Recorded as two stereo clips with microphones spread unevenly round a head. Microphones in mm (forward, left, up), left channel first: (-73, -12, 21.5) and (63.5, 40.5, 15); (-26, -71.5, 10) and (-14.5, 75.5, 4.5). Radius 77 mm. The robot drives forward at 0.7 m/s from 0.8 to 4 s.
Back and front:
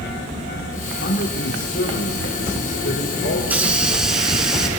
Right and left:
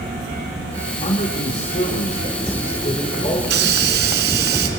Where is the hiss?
100° left, 3 m; by 4.7 s 110° left, 3.5 m.